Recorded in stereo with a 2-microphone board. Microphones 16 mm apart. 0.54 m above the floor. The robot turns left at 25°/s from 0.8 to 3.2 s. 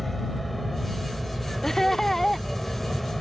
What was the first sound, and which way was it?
An aircraft, 10° left (ahead or behind).